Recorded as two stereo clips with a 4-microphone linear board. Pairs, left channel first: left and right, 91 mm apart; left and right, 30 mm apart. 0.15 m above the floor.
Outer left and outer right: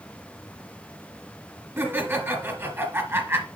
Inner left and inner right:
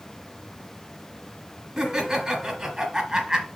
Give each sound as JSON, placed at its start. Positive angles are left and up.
{"t": 1.8, "sound": "laughter", "side_deg": -25, "distance_m": 2.0}